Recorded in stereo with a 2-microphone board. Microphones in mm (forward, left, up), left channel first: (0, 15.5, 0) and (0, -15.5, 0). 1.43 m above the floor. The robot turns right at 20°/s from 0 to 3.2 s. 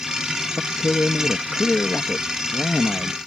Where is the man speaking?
110° left; by 3.2 s 165° left.